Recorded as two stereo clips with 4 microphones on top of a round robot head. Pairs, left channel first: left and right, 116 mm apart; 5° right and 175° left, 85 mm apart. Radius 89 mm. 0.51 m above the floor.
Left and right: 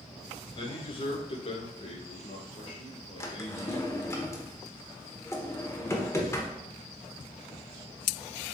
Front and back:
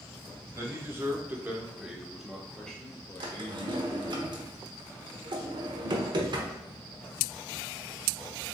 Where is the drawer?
155° left, 1.0 m.